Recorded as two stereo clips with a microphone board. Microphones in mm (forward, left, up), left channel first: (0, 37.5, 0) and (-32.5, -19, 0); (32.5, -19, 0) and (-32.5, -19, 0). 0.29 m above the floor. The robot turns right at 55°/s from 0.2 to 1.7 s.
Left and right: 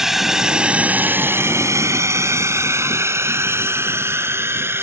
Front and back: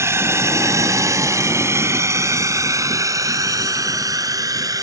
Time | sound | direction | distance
0.0 | a drone | 160° left | ?